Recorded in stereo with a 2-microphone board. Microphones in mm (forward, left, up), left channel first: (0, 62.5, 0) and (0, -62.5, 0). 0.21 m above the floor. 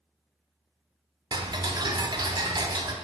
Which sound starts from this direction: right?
Ticking, at 1.3 s.